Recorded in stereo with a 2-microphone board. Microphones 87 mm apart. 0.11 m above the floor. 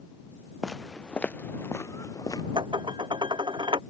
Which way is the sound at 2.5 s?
60° right (ahead or behind).